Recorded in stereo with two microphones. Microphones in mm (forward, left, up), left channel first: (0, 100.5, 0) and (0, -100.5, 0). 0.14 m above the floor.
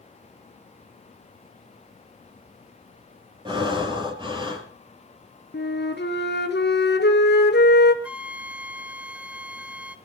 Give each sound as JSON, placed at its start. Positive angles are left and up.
{"t": 3.5, "sound": "breathing", "side_deg": -25, "distance_m": 3.0}
{"t": 5.5, "sound": "a flute", "side_deg": 60, "distance_m": 1.6}
{"t": 8.0, "sound": "a flute", "side_deg": -5, "distance_m": 0.6}